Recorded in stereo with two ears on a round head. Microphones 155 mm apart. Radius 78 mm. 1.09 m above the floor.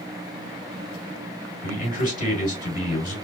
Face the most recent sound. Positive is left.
turn(degrees=50)  # may be behind; listen again after turning